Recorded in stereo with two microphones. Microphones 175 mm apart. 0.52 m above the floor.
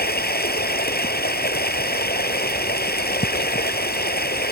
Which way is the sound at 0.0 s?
65° left (ahead or behind).